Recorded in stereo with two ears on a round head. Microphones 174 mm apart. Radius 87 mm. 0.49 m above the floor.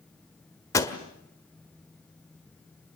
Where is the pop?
20° left (ahead or behind), 1.7 m.